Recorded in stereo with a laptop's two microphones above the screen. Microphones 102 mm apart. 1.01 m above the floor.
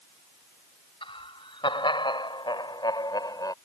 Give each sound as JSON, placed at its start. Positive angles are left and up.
{"t": 1.0, "sound": "laughter", "side_deg": 60}